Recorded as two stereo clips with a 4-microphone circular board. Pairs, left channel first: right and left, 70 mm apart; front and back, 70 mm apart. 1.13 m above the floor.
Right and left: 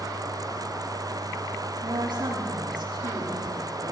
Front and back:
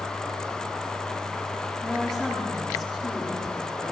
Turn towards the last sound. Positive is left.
turn(degrees=85)